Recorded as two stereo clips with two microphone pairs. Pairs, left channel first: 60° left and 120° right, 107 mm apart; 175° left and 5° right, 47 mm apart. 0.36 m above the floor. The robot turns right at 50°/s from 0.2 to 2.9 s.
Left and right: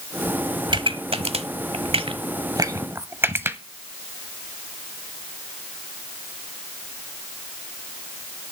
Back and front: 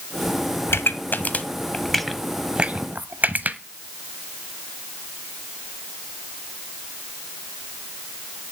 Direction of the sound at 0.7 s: 165° right.